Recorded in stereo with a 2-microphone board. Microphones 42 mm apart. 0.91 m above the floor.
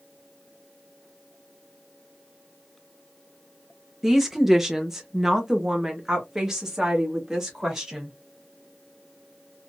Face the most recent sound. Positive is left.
turn(degrees=-10)  # may be behind; listen again after turning